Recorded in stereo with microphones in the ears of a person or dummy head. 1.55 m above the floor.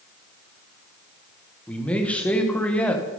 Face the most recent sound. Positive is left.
turn(degrees=5)  # may be behind; listen again after turning